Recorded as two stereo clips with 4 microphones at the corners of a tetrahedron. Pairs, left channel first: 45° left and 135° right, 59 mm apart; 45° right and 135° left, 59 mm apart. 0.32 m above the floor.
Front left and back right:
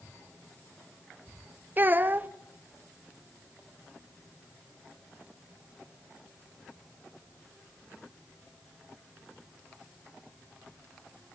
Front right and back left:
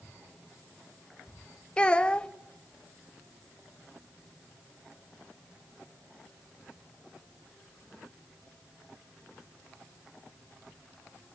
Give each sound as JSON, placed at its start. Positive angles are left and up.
{"t": 1.8, "sound": "a child speaking", "azimuth_deg": -105, "distance_m": 0.5}